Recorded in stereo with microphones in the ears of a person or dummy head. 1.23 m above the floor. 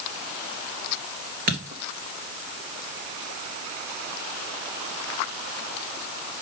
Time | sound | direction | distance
1.5 | a dropped coin | 55° right (ahead or behind) | 2.5 m